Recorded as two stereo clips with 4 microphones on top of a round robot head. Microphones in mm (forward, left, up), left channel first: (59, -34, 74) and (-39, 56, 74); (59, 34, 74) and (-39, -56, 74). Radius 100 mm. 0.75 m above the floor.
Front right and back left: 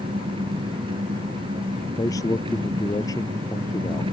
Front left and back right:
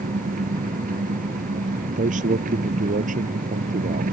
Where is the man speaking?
110° right.